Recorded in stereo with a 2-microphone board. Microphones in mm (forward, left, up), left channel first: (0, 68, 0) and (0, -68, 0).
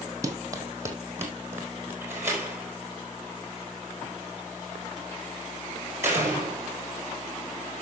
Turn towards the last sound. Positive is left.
turn(degrees=-20)  # may be behind; listen again after turning